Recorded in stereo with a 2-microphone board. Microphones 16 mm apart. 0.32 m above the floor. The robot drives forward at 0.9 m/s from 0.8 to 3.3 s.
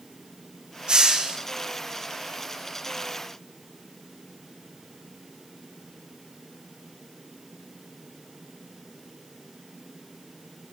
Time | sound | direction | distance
0.9 | a hiss | 50° right (ahead or behind) | 2.5 m